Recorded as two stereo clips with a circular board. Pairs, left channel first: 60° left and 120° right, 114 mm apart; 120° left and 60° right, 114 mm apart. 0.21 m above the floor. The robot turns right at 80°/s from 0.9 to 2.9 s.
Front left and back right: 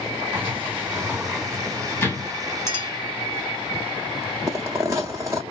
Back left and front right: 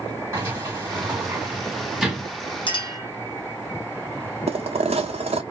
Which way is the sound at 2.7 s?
115° left.